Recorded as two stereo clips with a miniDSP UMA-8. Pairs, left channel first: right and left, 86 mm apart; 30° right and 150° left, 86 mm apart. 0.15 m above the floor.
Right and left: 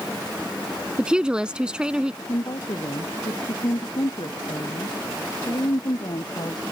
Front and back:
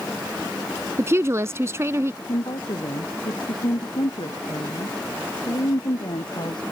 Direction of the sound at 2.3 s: 55° right.